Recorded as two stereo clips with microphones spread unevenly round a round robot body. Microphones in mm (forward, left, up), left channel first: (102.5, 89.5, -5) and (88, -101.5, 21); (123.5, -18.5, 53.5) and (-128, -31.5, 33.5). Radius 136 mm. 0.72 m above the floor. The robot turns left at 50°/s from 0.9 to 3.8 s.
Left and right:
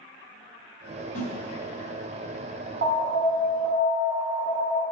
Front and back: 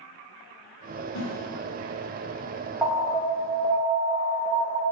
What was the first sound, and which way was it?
A snare drum, 40° left.